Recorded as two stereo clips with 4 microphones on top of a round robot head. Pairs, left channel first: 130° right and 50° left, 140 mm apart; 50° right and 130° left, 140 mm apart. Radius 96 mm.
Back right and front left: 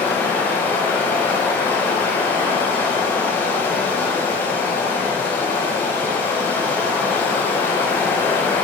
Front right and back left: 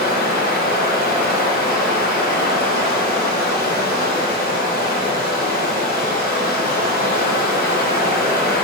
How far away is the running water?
About 1.2 m.